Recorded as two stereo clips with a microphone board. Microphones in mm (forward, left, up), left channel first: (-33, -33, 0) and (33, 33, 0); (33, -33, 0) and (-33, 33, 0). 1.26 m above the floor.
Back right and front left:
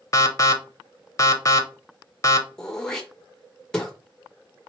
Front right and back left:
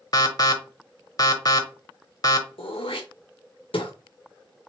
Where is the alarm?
85° right, 0.8 m.